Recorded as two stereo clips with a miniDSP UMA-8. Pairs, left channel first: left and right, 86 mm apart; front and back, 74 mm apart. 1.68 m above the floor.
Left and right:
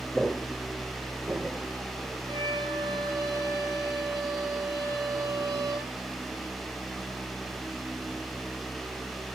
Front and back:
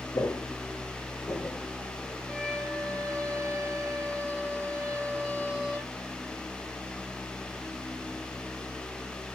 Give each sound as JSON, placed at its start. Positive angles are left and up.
{"t": 0.1, "sound": "footsteps", "azimuth_deg": 5, "distance_m": 2.5}
{"t": 2.3, "sound": "a violin", "azimuth_deg": -90, "distance_m": 9.0}